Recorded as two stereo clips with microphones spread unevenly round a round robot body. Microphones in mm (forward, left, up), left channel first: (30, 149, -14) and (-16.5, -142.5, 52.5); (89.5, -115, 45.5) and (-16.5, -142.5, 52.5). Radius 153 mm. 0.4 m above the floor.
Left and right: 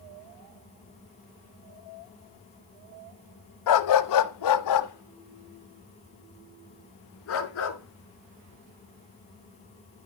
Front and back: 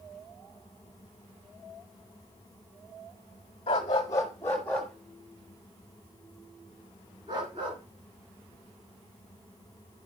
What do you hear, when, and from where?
3.7 s a dog barking: 70° left, 1.1 m; by 10.1 s 135° left, 3.5 m